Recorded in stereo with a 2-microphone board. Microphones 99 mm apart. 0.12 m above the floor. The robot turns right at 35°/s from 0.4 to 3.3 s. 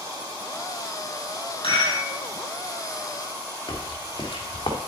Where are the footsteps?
40° left (ahead or behind), 3.5 m; by 4.8 s 50° left (ahead or behind), 3 m.